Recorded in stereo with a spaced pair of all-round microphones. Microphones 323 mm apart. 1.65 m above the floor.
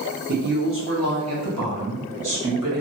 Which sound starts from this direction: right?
A woman speaking, at 0.3 s.